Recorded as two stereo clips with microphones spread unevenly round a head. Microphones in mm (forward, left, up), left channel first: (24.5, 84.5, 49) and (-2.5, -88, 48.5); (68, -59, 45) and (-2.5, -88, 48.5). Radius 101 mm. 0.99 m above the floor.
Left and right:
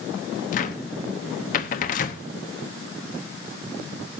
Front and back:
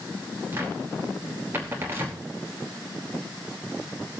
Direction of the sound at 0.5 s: 130° left.